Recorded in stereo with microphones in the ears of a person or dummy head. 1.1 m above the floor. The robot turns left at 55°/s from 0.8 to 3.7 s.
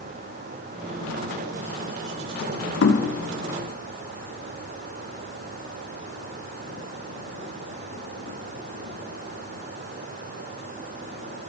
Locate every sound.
2.8 s knocking: 70° left (ahead or behind), 1.6 m; by 3.1 s 85° left, 1.6 m